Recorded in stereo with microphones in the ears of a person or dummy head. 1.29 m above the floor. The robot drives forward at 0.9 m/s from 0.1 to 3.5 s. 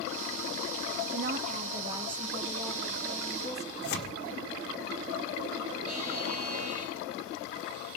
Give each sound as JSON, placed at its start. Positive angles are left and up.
{"t": 1.1, "sound": "a woman speaking", "side_deg": -55, "distance_m": 0.5}
{"t": 3.8, "sound": "tearing paper", "side_deg": 65, "distance_m": 1.6}
{"t": 5.9, "sound": "a buzzer", "side_deg": -50, "distance_m": 3.5}